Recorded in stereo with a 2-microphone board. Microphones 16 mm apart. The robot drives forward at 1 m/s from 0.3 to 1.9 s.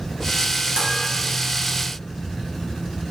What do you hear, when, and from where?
0.8 s dishes clattering: 60° right (ahead or behind), 2.5 m; by 0.9 s 65° right (ahead or behind), 2.5 m